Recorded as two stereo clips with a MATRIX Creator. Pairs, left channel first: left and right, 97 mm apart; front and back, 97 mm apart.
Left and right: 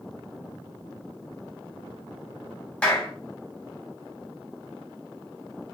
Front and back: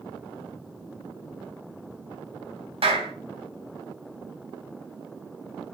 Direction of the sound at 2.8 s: 170° left.